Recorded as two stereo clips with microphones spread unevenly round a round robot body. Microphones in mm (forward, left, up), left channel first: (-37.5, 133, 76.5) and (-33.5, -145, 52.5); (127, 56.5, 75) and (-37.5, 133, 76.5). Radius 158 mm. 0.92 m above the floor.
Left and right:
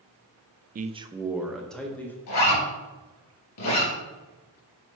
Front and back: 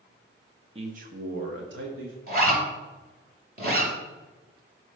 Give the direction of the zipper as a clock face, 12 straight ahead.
8 o'clock.